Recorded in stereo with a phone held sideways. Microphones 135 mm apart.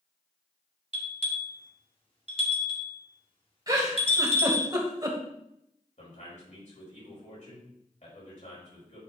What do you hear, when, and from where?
0.9 s a bell: 45° left (ahead or behind), 1.9 m
3.7 s a giggle: 30° right (ahead or behind), 1.8 m
6.0 s a man speaking: 65° left (ahead or behind), 5 m